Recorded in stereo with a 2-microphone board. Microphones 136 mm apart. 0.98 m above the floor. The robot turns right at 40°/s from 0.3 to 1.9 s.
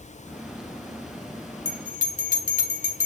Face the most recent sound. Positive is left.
turn(degrees=85)